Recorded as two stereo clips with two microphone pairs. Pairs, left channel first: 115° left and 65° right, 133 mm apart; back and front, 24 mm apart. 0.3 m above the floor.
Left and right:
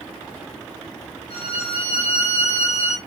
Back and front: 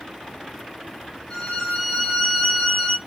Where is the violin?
115° left, 1.5 m.